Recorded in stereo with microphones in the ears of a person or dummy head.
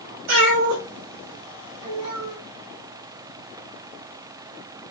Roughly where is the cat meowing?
Right.